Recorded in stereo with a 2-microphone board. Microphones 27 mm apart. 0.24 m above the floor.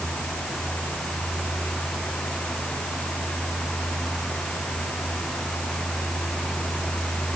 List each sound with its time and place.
Only background noise.